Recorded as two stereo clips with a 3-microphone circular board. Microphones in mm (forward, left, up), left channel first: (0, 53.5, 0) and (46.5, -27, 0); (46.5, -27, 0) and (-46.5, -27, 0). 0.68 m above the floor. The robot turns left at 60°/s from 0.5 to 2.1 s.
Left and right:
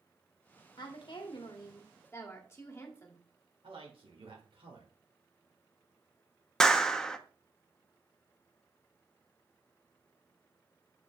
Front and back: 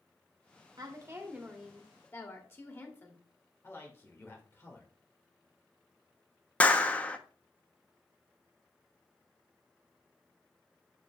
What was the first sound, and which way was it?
A woman speaking, 140° left.